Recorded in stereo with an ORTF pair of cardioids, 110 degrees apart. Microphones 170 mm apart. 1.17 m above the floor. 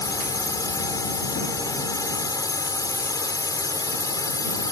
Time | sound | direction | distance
0.0 | a drone | 20° left | ?